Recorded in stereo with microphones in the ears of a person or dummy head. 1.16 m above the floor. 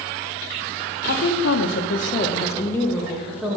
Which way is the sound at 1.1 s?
60° left (ahead or behind).